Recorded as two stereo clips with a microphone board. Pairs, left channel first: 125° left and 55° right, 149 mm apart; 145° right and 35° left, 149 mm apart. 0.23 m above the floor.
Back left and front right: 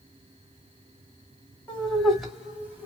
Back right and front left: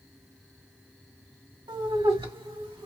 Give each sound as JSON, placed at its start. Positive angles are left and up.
{"t": 1.7, "sound": "laughter", "azimuth_deg": 50, "distance_m": 1.8}